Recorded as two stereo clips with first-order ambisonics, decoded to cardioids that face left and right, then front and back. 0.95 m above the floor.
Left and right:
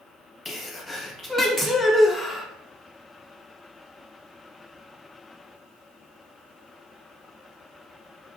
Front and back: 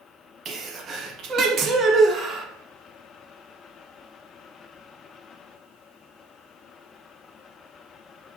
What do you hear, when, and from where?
0.5 s a sneeze: 160° left, 0.5 m